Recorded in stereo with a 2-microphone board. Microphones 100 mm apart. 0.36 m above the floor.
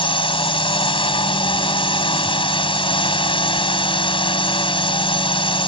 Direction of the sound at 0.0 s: 60° left (ahead or behind).